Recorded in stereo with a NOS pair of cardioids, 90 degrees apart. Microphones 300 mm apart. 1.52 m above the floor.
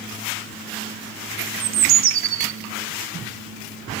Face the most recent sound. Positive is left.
turn(degrees=-50)